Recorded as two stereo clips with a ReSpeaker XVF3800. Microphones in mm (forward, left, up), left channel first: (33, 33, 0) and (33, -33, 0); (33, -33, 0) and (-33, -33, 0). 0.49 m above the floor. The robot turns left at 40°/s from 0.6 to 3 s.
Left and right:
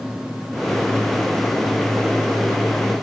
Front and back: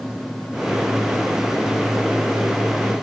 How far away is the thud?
No thud in this recording.